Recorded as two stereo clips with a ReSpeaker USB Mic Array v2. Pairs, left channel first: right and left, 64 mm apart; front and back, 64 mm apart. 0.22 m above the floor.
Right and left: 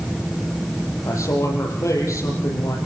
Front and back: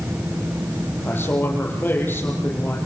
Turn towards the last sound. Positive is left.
turn(degrees=-55)